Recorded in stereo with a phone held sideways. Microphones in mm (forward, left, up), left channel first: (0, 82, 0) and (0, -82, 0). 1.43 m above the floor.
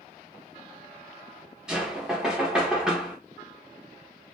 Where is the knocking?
5° right (ahead or behind), 0.7 m.